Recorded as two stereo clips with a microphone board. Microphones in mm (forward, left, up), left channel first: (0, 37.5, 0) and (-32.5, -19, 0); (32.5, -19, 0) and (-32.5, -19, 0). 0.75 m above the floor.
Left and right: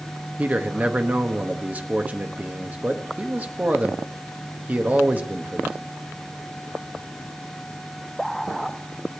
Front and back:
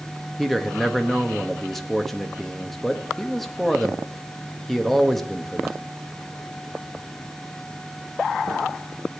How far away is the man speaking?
About 1.0 m.